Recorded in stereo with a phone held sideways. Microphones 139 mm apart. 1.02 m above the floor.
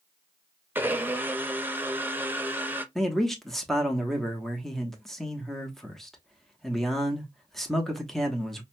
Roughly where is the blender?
Centre.